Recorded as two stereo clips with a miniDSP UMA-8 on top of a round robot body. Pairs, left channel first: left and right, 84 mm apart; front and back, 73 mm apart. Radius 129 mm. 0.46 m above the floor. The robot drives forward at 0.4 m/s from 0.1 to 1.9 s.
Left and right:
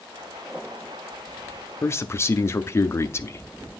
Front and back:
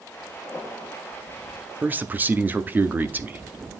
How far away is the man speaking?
About 0.8 m.